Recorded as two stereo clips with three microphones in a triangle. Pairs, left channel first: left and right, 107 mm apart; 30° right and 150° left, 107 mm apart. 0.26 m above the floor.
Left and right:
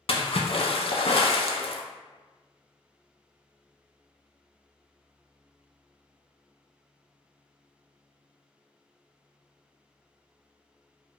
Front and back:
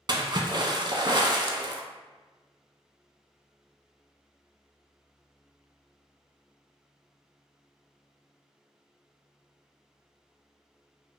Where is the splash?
110° left, 0.5 m.